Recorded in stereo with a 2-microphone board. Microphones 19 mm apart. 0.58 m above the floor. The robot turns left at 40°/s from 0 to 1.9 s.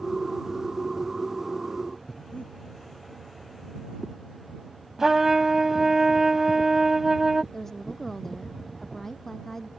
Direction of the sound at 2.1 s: 85° left.